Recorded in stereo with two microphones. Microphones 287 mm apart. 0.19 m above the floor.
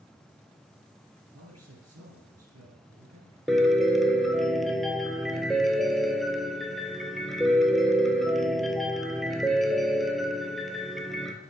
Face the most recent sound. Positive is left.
turn(degrees=0)  # may be behind; listen again after turning